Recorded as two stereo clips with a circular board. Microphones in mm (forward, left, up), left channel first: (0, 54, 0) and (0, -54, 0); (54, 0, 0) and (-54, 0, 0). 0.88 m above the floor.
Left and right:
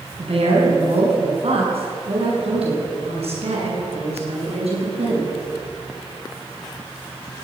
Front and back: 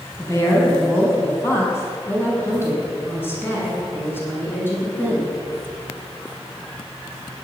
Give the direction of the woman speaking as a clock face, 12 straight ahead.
2 o'clock.